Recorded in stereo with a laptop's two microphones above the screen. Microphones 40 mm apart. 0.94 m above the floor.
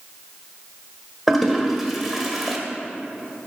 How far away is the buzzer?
No buzzer in this recording.